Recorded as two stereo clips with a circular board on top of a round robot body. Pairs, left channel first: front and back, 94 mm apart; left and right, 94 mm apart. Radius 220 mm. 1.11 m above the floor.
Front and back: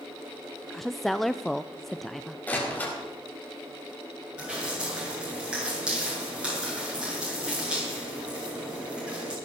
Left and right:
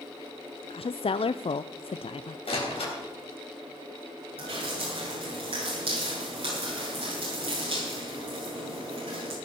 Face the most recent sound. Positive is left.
turn(degrees=-100)